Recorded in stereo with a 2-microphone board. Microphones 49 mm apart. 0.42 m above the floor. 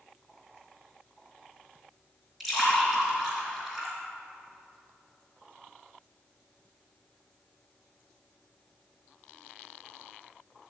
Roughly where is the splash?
Centre.